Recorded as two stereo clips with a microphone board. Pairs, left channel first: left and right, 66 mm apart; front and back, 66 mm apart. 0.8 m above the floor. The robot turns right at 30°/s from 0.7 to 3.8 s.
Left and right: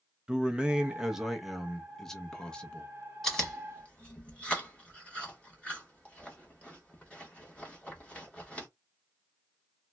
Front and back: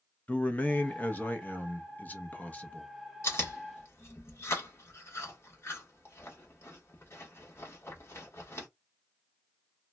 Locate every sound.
0.3 s a man speaking: 30° right, 0.6 m; by 2.9 s 35° left, 0.6 m
3.2 s chewing: 10° left, 1.3 m; by 8.7 s 25° left, 1.3 m